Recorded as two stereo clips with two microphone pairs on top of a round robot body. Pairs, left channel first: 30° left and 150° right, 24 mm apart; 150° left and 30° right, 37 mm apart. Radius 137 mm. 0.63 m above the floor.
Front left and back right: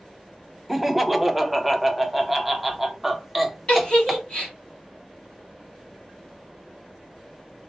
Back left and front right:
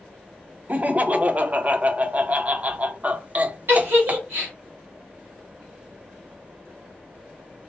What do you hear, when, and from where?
0.7 s laughter: 70° right, 0.6 m
3.7 s a giggle: 20° right, 1.0 m